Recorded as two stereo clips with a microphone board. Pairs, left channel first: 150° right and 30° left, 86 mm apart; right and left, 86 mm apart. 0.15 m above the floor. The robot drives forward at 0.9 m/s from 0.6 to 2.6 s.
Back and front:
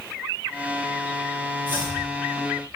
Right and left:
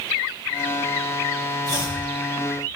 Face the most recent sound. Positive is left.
turn(degrees=-45)